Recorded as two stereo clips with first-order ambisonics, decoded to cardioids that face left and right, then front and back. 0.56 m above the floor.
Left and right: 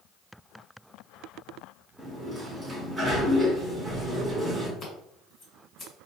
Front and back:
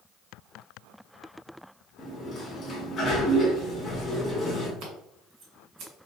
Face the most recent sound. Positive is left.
turn(degrees=155)